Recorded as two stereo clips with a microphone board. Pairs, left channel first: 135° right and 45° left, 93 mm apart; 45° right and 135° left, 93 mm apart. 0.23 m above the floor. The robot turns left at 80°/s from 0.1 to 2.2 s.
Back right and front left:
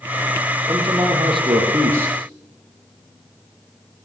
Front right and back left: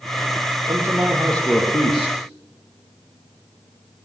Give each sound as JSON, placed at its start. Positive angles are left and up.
{"t": 0.7, "sound": "a man speaking", "azimuth_deg": 90, "distance_m": 8.5}